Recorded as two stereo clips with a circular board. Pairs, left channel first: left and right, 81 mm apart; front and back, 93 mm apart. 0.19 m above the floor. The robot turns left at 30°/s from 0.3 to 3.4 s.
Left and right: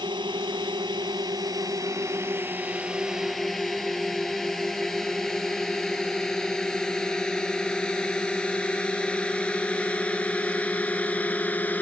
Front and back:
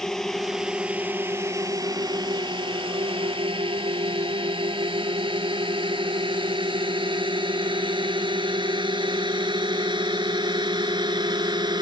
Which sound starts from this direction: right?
A drone, at 0.0 s.